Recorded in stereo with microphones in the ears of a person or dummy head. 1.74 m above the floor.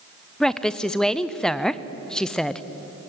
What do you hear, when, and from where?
0.4 s a woman speaking: 5° left (ahead or behind), 0.7 m